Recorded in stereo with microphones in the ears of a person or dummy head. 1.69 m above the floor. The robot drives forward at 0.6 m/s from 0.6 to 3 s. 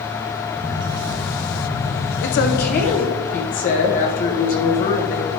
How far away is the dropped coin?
I don't hear a dropped coin.